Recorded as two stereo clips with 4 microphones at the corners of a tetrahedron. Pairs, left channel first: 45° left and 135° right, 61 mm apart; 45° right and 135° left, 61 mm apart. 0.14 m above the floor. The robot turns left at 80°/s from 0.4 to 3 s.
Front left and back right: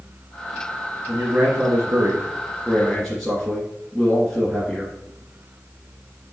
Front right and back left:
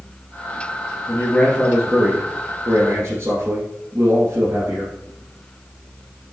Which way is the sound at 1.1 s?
80° right.